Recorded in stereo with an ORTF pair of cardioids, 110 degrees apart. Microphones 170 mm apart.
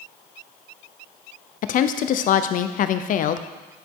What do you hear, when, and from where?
1.6 s a woman speaking: 50° left, 0.6 m